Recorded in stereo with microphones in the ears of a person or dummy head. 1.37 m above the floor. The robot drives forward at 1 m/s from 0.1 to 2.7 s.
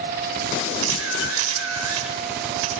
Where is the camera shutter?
80° right, 7 m; by 2.7 s 85° right, 7 m.